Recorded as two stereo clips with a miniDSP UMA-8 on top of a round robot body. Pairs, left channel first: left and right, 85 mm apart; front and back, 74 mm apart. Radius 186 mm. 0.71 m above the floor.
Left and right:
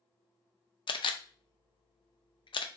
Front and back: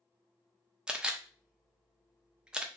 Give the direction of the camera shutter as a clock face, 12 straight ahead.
9 o'clock.